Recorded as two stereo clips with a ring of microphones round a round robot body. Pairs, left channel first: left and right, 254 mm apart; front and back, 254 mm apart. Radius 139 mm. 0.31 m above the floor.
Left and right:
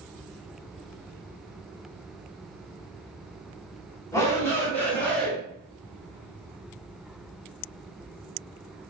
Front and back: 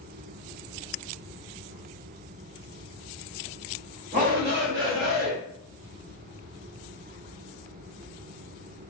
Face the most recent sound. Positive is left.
turn(degrees=175)